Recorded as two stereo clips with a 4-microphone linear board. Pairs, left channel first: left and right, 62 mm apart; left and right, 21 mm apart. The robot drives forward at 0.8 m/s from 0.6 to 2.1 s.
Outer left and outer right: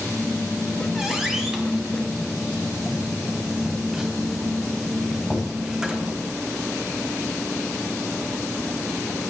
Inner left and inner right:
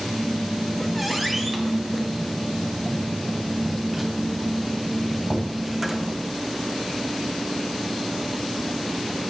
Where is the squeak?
5° right (ahead or behind), 3.5 m; by 6.1 s 10° right (ahead or behind), 2.5 m.